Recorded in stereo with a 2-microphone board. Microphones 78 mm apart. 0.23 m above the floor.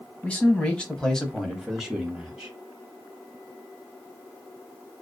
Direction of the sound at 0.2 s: 20° left (ahead or behind).